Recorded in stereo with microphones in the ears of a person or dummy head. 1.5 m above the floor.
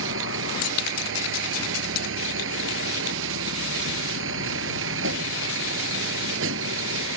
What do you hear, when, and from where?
0.0 s a vehicle: 80° right